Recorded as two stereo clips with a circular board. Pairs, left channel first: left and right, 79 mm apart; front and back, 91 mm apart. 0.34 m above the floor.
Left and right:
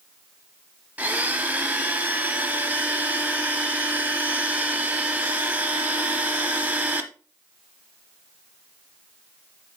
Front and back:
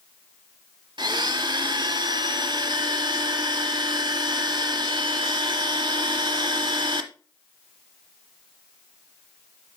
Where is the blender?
155° right, 1.0 m.